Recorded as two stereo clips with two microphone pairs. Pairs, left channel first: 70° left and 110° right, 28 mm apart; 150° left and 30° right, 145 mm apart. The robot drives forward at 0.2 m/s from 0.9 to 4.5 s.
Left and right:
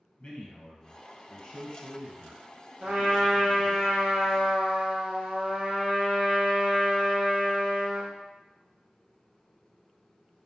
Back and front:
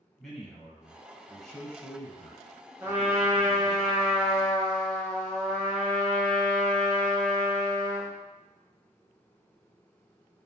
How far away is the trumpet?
About 0.8 m.